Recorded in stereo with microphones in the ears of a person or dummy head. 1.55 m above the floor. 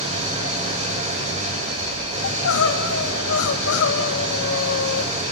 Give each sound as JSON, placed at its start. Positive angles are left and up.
{"t": 0.0, "sound": "an engine running", "side_deg": -35, "distance_m": 3.5}
{"t": 2.2, "sound": "crying", "side_deg": 75, "distance_m": 2.5}